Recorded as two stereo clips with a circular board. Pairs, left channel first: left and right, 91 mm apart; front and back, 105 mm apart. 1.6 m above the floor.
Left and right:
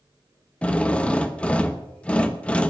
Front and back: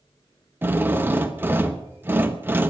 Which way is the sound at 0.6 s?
150° left.